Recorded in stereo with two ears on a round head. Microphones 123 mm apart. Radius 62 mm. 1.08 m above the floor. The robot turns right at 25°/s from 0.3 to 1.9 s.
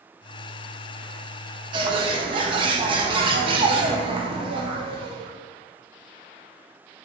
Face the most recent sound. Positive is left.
turn(degrees=-40)  # may be behind; listen again after turning